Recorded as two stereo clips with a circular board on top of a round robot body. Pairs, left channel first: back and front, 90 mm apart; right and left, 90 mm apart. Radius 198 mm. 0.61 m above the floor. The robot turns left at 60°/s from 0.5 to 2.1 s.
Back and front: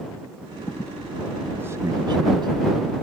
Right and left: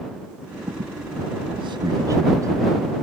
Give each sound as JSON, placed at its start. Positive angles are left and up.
{"t": 0.7, "sound": "a squeak", "azimuth_deg": 120}